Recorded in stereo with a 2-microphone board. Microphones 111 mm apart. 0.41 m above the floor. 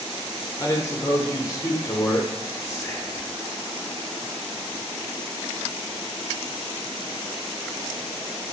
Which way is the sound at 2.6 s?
30° left (ahead or behind).